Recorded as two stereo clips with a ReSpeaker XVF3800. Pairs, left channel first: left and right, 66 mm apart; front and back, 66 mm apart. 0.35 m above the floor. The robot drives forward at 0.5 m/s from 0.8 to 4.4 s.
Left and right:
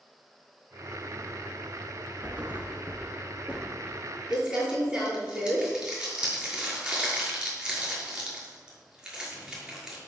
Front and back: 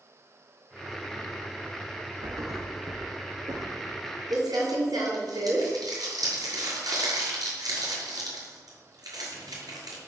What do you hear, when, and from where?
2.2 s a thud: 155° right, 2 m; by 4.0 s 165° right, 3 m
4.3 s crumpling: 165° right, 6 m